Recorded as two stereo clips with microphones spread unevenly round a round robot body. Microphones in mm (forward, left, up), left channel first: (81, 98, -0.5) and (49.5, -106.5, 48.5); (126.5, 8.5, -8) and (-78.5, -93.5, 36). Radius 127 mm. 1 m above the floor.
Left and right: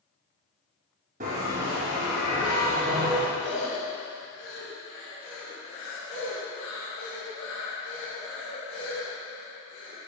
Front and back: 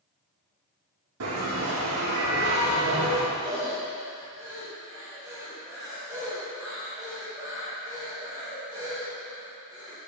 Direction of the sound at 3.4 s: 125° left.